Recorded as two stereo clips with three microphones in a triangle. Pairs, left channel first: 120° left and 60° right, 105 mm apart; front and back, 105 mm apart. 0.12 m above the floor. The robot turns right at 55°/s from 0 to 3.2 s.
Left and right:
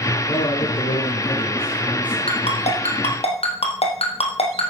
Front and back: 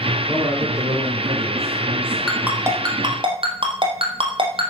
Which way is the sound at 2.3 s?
95° left.